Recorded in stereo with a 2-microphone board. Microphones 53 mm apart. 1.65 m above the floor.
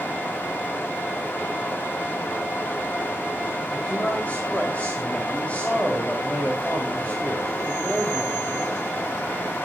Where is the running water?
40° left (ahead or behind), 2.5 m.